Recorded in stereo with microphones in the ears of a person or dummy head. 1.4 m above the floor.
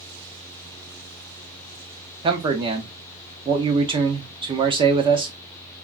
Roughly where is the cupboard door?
No cupboard door in this recording.